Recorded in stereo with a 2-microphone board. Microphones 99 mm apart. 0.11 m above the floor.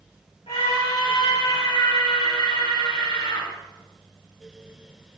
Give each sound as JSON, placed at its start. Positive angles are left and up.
{"t": 0.5, "sound": "a scream", "side_deg": 80, "distance_m": 8.0}